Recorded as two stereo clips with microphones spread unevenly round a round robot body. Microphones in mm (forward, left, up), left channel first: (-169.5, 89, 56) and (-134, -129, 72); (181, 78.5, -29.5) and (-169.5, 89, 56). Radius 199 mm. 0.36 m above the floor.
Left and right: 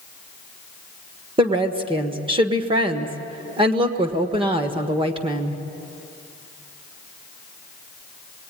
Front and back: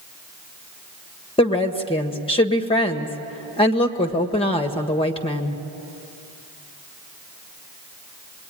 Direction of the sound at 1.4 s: 30° right.